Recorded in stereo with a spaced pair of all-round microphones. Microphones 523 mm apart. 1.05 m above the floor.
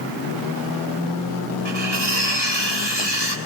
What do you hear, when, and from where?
1.6 s cutlery clinking: 50° left (ahead or behind), 6.5 m